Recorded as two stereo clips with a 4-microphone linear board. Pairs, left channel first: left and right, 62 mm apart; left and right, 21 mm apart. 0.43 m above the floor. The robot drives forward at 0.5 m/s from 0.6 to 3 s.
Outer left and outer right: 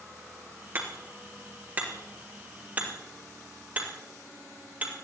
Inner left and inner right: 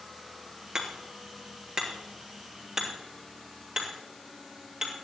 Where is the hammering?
35° right (ahead or behind), 3 m; by 4.9 s 25° right (ahead or behind), 4 m.